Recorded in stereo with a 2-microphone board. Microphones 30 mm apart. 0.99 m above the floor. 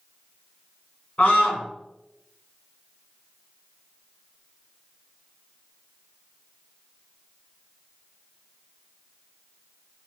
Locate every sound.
1.2 s a scream: 45° left (ahead or behind), 1.4 m